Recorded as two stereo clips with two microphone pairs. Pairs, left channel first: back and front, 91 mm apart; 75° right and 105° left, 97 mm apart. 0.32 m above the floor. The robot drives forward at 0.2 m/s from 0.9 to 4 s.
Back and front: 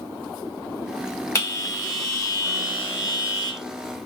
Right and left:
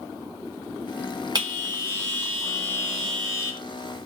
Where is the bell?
130° left, 1.3 m; by 3.6 s 145° left, 1.6 m.